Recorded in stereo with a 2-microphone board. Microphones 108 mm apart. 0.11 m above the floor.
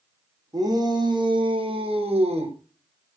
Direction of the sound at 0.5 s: 40° right (ahead or behind).